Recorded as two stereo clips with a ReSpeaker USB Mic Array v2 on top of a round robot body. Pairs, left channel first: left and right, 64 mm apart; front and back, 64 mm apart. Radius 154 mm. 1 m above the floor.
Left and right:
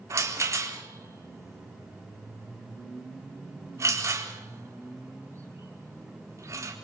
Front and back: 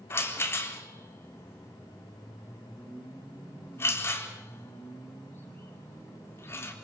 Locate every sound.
0.1 s a rattle: 50° right, 4 m